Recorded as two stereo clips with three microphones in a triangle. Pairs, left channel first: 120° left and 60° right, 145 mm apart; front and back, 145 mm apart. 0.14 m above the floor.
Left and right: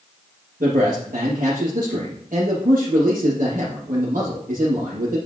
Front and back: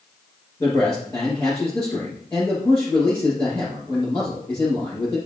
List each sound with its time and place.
0.6 s a man speaking: 70° right, 4.5 m